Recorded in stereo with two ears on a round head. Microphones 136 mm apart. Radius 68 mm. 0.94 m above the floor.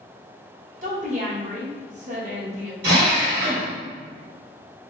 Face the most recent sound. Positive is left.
turn(degrees=-75)  # may be behind; listen again after turning